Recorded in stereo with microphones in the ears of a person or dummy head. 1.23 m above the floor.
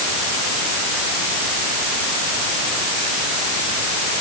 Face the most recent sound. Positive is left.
No sound to turn to.